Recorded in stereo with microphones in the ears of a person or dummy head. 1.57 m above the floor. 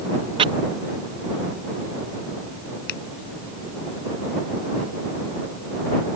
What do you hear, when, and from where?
0.4 s chopping: 30° right (ahead or behind)
2.9 s a finger snap: 65° left (ahead or behind)